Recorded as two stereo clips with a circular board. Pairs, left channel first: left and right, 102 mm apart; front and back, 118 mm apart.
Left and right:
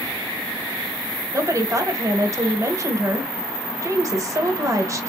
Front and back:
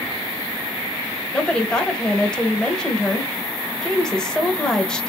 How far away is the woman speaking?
About 0.9 m.